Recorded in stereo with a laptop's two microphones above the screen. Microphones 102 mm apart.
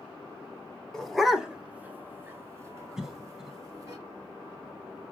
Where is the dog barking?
5° left (ahead or behind), 0.7 m; by 4.0 s 30° right (ahead or behind), 1.5 m.